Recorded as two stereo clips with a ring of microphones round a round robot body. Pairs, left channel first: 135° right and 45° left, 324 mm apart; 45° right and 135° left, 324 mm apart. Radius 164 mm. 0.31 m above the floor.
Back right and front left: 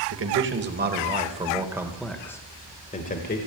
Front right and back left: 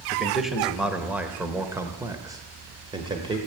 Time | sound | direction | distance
0.1 | a man speaking | 45° left | 1.6 m